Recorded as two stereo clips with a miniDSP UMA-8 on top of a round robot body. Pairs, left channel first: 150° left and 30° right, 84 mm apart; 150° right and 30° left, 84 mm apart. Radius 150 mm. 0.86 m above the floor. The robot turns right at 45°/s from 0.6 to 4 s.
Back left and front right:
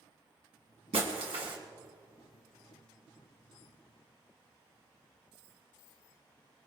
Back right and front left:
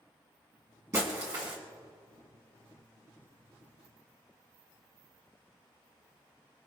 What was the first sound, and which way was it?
Breaking glass, 30° right.